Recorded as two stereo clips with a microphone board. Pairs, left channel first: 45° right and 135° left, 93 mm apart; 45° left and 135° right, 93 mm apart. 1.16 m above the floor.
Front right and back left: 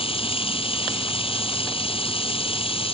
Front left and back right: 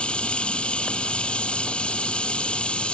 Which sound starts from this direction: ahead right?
Running water, at 0.0 s.